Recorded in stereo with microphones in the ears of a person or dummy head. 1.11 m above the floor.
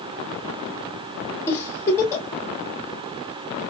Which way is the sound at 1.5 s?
15° left (ahead or behind).